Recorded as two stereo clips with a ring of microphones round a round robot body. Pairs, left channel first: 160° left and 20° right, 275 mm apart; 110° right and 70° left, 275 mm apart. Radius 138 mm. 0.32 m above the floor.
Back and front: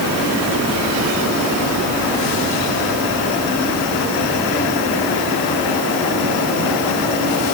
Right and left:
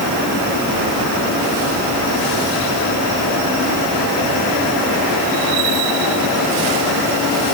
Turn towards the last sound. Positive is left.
No sound to turn to.